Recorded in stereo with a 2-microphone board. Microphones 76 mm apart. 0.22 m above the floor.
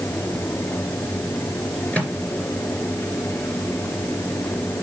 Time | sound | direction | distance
1.9 | a microwave | 20° left (ahead or behind) | 3 m